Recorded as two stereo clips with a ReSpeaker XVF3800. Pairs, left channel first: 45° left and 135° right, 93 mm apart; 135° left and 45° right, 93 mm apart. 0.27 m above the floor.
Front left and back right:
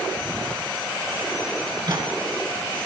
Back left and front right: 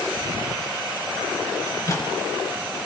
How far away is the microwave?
About 3 m.